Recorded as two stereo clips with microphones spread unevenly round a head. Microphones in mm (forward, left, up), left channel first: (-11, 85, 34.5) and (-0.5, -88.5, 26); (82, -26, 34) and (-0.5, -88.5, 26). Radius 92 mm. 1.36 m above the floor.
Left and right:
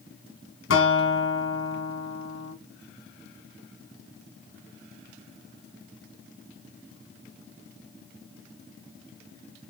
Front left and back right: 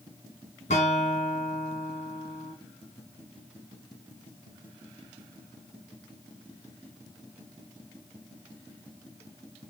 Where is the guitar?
80° left, 2 m.